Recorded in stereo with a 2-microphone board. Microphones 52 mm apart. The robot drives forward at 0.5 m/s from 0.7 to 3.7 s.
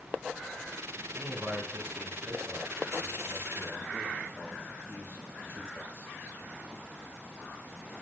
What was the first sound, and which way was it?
A man speaking, 50° right (ahead or behind).